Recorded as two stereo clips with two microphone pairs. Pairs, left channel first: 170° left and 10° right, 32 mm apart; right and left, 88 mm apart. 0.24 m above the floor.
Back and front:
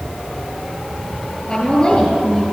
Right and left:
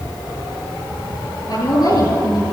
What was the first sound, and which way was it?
A woman speaking, 130° right.